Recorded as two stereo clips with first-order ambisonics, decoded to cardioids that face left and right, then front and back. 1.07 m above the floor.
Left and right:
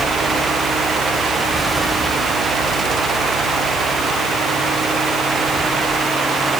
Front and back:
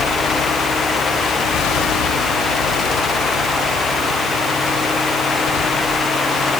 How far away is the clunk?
No clunk in this recording.